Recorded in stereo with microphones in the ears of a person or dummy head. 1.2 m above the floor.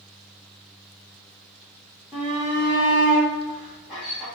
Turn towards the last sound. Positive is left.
turn(degrees=-5)  # may be behind; listen again after turning